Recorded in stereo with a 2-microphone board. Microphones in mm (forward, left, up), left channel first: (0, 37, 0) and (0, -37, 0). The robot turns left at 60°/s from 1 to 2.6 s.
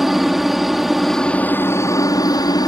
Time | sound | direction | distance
0.0 | a helicopter | 175° right | ?